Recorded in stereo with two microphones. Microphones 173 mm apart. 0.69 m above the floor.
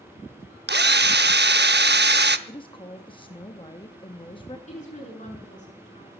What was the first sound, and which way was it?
A drill, 75° right (ahead or behind).